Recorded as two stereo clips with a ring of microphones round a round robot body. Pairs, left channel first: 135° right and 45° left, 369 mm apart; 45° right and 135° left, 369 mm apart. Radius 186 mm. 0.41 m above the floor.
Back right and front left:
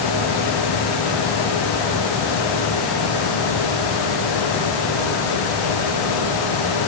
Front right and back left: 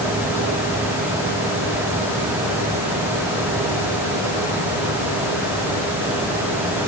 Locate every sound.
Only background noise.